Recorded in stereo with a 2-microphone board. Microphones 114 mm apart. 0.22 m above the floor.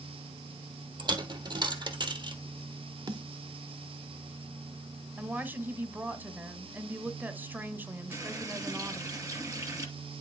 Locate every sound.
1.0 s a dropped coin: 40° right (ahead or behind), 1.6 m
3.1 s a snare drum: 40° right (ahead or behind), 1.6 m
5.2 s a woman speaking: 15° right (ahead or behind), 1.3 m
8.1 s a running tap: 30° right (ahead or behind), 2.5 m